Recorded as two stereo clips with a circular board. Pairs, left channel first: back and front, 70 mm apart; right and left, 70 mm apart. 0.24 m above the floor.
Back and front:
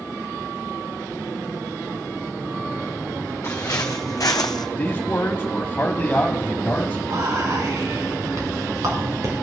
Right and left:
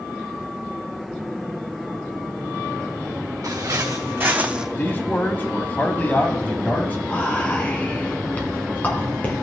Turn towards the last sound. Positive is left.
turn(degrees=-25)